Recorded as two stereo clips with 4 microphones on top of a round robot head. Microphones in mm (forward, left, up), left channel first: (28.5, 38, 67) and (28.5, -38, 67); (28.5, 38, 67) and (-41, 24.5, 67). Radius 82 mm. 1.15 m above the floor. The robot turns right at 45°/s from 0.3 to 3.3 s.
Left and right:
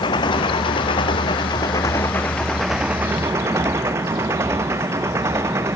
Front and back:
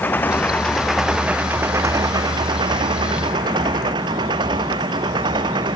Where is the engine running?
75° left; by 5.8 s 150° right.